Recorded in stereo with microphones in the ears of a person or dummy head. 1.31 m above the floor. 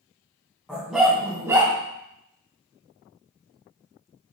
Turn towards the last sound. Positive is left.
turn(degrees=-20)  # may be behind; listen again after turning